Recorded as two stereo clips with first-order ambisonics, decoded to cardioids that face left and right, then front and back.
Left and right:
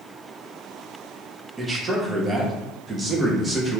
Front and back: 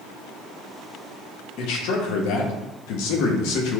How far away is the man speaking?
About 0.6 m.